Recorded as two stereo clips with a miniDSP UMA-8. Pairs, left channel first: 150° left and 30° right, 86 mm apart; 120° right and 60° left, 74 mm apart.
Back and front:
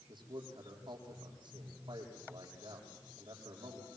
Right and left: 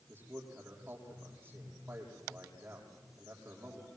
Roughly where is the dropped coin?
I don't hear a dropped coin.